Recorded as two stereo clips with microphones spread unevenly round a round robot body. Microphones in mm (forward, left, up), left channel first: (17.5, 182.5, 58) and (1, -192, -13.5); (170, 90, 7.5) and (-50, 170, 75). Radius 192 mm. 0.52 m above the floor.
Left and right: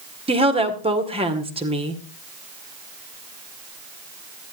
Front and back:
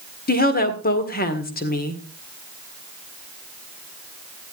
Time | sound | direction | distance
0.3 | a woman speaking | 30° right | 1.8 m